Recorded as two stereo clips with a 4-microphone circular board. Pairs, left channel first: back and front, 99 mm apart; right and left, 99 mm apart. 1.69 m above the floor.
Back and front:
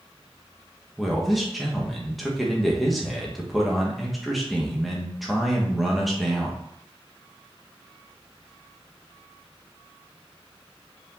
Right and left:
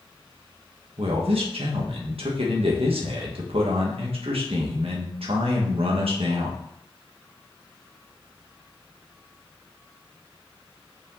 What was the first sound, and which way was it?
A man speaking, 90° left.